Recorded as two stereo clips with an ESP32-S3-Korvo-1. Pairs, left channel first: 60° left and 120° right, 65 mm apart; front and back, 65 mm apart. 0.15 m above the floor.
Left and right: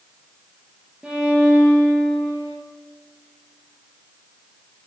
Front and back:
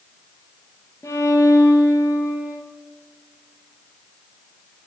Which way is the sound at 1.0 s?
45° right.